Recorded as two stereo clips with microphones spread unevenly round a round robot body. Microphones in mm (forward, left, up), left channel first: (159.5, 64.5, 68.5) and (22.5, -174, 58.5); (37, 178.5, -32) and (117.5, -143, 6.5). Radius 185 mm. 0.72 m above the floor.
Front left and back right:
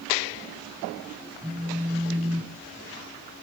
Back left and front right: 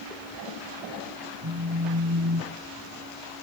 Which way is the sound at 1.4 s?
40° right.